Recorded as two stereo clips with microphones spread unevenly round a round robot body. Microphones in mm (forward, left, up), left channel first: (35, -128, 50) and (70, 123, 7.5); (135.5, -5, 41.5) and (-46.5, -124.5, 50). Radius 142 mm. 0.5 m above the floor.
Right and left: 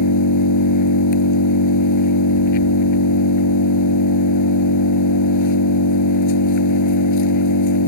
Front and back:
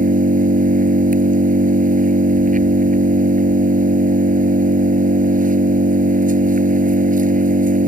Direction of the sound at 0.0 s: 95° right.